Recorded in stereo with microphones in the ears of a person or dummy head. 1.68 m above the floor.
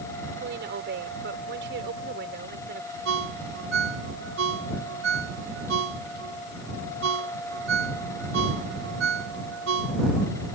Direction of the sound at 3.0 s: 65° right (ahead or behind).